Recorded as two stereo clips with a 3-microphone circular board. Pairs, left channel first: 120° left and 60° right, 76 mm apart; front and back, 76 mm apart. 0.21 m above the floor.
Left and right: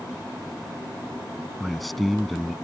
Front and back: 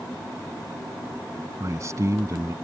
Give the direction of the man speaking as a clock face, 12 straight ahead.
5 o'clock.